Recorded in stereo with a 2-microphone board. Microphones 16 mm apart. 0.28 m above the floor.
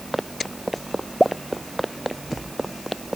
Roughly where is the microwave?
I don't hear a microwave.